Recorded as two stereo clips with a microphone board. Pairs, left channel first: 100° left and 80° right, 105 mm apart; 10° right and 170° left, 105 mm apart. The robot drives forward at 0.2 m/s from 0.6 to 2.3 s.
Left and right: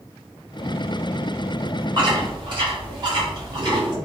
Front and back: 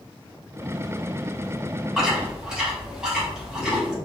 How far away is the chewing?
About 0.9 m.